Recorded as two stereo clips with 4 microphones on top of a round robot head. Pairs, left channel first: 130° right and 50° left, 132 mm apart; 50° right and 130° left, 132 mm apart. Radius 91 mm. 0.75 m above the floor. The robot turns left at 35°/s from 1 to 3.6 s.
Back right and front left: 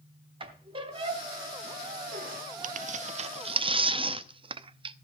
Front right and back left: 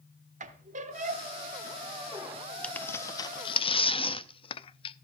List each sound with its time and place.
0.4 s a squeak: 100° left, 1.2 m; by 2.4 s 50° left, 1.2 m
2.6 s tearing paper: 35° left, 0.5 m; by 5.0 s straight ahead, 0.5 m